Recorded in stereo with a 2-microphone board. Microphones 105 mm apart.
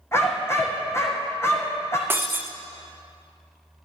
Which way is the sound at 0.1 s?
25° left (ahead or behind).